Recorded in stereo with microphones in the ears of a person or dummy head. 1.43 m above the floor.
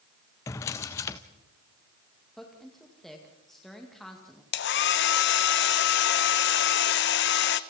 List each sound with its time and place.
0.5 s a drawer: 15° left (ahead or behind), 0.7 m
2.4 s a woman speaking: 5° left (ahead or behind), 1.9 m
4.5 s a hair dryer: 55° left (ahead or behind), 0.8 m